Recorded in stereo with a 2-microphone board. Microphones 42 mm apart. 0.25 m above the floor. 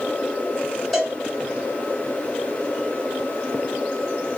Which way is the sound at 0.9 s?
10° left (ahead or behind).